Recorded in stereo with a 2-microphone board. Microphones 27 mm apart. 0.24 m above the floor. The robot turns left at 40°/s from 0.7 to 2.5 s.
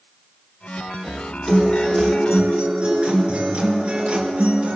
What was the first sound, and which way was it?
A guitar, 5° right.